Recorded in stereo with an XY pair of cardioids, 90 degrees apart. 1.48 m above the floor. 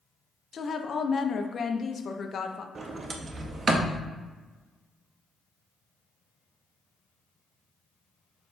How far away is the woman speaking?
About 0.6 m.